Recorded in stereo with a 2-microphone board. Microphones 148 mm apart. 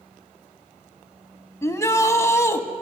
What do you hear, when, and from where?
1.6 s a shout: 20° left (ahead or behind), 1.2 m